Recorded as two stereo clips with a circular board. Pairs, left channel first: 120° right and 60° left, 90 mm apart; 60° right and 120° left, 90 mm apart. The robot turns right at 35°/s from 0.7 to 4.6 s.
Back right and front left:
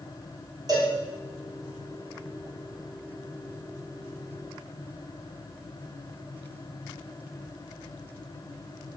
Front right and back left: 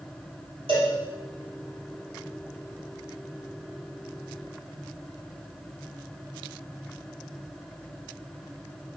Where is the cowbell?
105° left, 3 m; by 0.9 s 115° left, 3 m.